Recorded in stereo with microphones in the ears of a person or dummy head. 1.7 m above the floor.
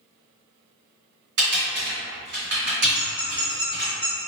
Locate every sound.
1.4 s typing on a keyboard: 55° right (ahead or behind), 1.8 m
2.9 s a squeak: centre (ahead or behind), 1.5 m